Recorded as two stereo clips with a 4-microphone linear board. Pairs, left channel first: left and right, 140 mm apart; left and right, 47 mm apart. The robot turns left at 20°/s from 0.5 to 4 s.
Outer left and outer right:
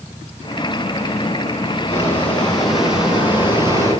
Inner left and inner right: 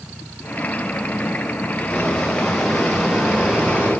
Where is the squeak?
15° left, 9.5 m; by 3.9 s 25° right, 9.5 m.